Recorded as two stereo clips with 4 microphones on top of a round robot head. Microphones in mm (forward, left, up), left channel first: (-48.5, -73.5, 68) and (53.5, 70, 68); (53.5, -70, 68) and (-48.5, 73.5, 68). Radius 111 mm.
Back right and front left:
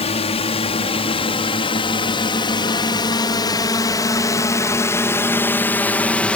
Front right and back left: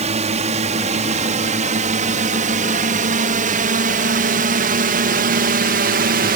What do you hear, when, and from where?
0.0 s a drone: straight behind; by 6.4 s 150° left